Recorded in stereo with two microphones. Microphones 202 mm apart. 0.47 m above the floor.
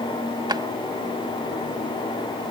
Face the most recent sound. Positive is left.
turn(degrees=-20)  # may be behind; listen again after turning